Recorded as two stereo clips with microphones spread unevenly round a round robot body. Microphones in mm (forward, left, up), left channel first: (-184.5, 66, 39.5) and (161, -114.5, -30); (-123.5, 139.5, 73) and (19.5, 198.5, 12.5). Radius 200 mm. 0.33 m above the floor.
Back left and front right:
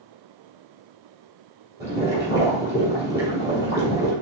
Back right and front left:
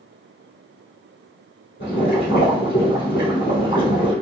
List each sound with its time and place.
1.8 s boiling: 110° right, 2 m